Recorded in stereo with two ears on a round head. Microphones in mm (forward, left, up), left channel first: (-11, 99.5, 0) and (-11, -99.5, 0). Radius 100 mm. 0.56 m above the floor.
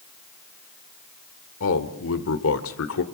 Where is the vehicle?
I don't hear a vehicle.